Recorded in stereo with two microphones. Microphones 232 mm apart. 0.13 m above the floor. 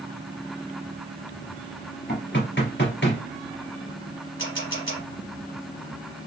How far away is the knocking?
About 2 m.